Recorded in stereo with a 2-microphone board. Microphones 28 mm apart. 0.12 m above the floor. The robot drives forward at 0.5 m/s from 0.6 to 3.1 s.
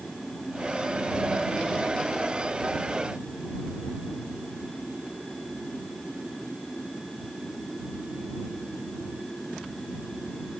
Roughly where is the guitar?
I don't hear a guitar.